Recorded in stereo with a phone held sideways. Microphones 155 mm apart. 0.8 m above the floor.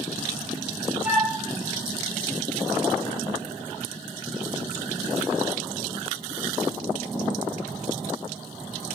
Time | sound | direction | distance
1.0 | a flute | 85° right | 1.6 m